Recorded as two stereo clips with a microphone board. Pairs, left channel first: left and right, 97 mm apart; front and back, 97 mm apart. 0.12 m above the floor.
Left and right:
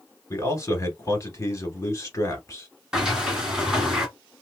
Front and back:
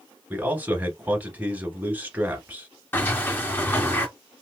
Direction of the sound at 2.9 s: 15° right.